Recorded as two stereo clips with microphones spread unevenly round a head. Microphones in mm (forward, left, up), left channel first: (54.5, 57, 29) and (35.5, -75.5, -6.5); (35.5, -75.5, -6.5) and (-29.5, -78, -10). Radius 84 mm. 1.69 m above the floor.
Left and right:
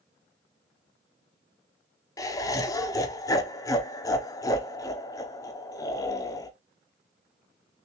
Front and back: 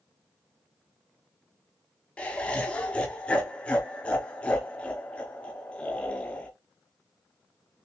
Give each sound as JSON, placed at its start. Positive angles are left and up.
{"t": 2.2, "sound": "laughter", "azimuth_deg": 65, "distance_m": 0.6}